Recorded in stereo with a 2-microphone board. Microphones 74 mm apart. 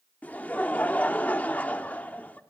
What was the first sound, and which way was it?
Laughter, 25° left (ahead or behind).